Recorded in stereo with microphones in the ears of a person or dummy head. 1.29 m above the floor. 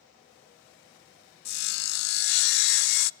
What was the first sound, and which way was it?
Sawing, 55° left (ahead or behind).